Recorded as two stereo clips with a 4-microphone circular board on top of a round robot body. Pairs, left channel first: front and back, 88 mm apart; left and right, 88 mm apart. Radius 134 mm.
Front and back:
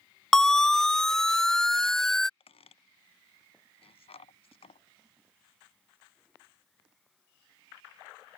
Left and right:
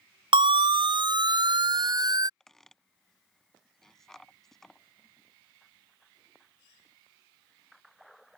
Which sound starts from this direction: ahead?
A squeak, at 2.4 s.